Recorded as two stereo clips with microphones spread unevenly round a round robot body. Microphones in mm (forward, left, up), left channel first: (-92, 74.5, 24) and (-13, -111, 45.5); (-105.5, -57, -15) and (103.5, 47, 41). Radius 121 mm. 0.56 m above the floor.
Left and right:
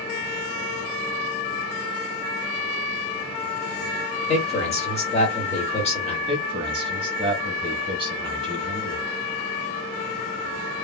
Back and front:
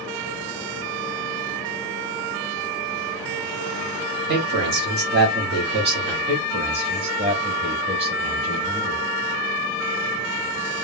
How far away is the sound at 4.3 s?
About 1.6 m.